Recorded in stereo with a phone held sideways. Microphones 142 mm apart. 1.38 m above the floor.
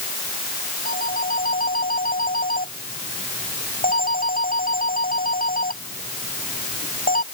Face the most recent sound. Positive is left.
turn(degrees=85)